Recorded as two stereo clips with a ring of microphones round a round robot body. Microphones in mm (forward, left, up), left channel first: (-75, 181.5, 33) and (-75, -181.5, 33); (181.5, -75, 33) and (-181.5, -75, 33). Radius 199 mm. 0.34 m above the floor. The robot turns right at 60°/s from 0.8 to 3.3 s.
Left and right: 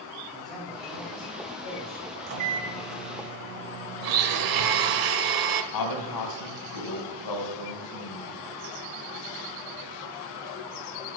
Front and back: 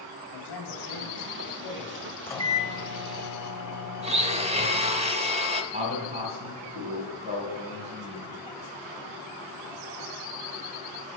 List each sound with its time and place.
0.3 s a man speaking: straight ahead, 2.5 m; by 2.2 s 80° left, 2.5 m
2.3 s a microwave: 85° right, 1.5 m; by 5.0 s 20° right, 1.5 m
4.0 s a blender: 110° right, 0.9 m
5.7 s a man speaking: 105° left, 2.5 m